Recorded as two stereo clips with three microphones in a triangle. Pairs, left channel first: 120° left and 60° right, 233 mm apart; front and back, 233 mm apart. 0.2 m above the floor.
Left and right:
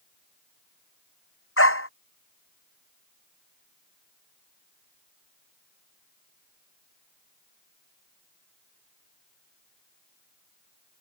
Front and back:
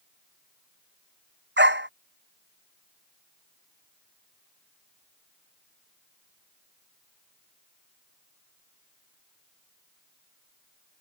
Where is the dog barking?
140° left.